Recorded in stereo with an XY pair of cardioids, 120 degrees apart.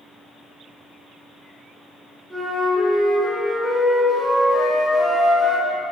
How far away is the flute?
About 1.0 m.